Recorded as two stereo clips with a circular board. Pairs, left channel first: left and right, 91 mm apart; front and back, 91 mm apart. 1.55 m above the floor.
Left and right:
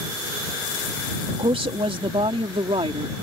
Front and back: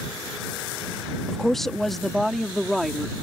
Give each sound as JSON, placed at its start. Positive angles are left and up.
{"t": 1.3, "sound": "a woman speaking", "azimuth_deg": -85}